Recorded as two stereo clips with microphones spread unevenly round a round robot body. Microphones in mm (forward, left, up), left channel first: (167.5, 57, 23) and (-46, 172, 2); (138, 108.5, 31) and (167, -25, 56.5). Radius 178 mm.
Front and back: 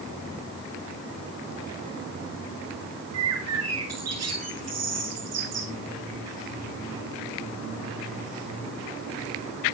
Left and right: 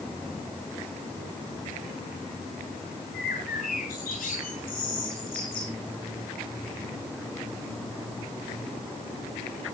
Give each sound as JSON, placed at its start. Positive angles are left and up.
{"t": 3.1, "sound": "a bird", "azimuth_deg": 140, "distance_m": 8.0}